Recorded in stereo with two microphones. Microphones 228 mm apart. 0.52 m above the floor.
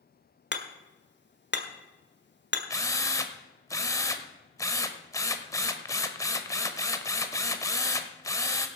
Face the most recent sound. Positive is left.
turn(degrees=15)  # may be behind; listen again after turning